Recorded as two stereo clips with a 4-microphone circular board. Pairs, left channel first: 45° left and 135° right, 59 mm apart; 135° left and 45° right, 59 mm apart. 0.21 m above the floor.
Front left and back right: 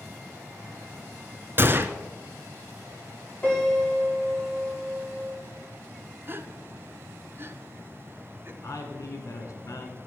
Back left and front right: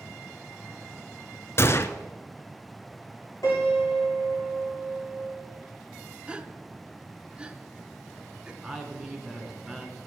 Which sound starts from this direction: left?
A piano, at 3.4 s.